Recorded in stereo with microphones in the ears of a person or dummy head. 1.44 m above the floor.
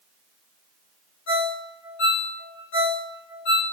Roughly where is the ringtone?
Left.